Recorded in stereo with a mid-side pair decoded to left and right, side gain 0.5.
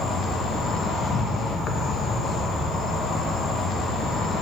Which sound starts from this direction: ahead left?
An insect, at 0.0 s.